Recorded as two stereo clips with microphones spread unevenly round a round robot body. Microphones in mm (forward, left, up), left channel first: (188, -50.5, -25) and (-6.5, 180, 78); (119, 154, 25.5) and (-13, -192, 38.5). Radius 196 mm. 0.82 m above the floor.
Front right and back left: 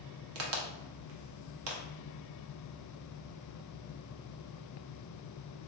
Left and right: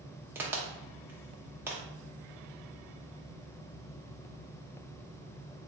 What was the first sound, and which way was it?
A crack, 165° left.